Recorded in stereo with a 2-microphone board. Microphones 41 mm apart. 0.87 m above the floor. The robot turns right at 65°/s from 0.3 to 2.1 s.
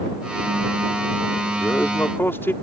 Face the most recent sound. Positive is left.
turn(degrees=100)